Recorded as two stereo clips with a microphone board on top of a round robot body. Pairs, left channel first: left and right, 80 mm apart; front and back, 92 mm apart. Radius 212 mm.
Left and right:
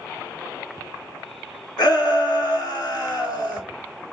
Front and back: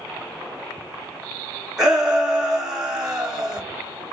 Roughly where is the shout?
Left.